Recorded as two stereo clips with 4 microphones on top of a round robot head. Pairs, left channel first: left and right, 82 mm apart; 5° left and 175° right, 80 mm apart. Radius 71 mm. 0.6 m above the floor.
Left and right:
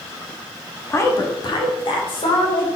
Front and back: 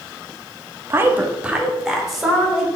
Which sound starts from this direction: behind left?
A woman speaking, at 0.9 s.